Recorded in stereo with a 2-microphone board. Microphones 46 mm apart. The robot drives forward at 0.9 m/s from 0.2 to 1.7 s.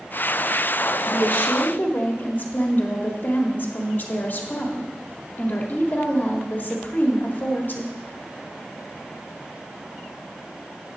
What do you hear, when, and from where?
1.1 s a woman speaking: 50° left (ahead or behind), 1.4 m; by 8.0 s 45° left (ahead or behind), 1.6 m